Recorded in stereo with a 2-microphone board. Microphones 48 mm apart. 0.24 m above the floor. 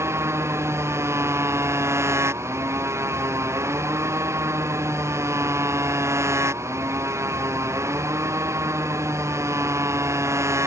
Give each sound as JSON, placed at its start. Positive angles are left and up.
{"t": 0.0, "sound": "a motorcycle", "side_deg": -60}